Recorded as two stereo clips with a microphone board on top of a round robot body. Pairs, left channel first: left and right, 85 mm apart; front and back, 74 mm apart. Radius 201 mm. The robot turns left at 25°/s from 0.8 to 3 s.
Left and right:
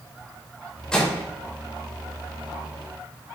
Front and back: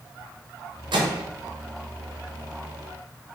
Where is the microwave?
175° left, 0.9 m; by 1.2 s 165° left, 0.9 m.